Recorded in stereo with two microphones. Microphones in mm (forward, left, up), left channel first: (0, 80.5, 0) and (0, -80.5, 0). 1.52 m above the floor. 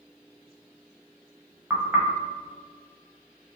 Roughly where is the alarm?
No alarm in this recording.